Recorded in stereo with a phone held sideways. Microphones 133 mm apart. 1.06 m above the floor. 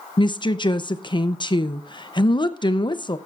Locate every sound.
0.2 s a woman speaking: 35° left (ahead or behind), 0.6 m